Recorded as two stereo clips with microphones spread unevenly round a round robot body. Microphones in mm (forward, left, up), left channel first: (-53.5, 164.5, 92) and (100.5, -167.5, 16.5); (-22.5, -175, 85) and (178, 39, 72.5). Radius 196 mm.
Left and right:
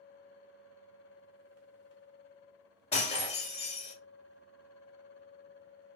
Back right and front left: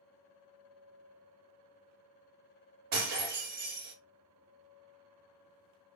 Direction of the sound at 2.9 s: 40° left.